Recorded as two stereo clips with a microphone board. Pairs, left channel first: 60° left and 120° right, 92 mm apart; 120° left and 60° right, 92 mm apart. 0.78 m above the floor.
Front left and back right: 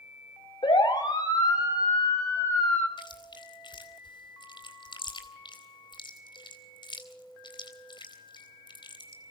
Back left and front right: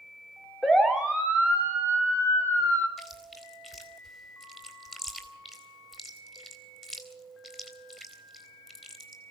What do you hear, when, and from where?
0.6 s a siren: 30° left, 3 m; by 2.9 s straight ahead, 5 m
3.0 s chewing: 25° left, 3.5 m